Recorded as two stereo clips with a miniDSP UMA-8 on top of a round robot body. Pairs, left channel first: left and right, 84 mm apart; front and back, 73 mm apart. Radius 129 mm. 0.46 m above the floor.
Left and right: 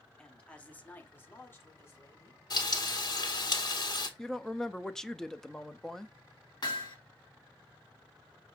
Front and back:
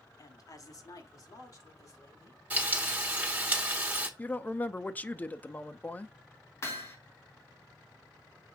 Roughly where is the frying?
Behind left.